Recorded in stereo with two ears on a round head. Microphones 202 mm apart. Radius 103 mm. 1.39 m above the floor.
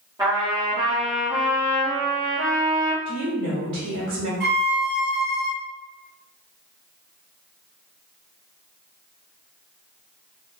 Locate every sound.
0.2 s a trumpet: 15° right (ahead or behind), 1.1 m
3.0 s a woman speaking: 50° right (ahead or behind), 1.0 m
4.4 s a violin: 50° right (ahead or behind), 0.6 m